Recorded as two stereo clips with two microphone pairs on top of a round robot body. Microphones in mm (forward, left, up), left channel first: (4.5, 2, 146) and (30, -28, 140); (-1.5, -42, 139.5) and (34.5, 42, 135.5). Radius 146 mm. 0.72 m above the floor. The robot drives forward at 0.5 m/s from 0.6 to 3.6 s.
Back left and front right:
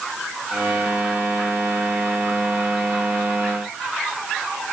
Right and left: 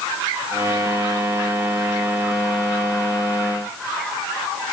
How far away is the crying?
No crying in this recording.